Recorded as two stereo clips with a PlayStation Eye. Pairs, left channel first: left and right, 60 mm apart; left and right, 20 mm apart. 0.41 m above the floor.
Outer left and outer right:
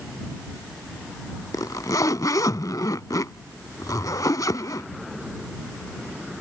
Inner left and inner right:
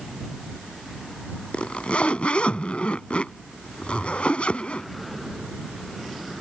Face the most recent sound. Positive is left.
turn(degrees=85)